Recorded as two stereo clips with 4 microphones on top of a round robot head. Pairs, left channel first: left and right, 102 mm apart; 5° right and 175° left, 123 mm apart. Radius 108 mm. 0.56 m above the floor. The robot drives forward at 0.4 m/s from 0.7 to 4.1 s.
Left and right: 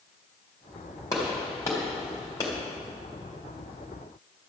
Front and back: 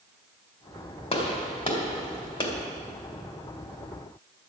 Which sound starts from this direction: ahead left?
A gunshot, at 1.1 s.